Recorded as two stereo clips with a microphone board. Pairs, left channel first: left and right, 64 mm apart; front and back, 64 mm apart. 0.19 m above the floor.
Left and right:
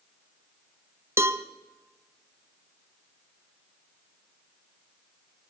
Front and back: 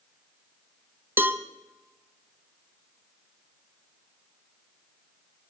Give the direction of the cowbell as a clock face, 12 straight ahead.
4 o'clock.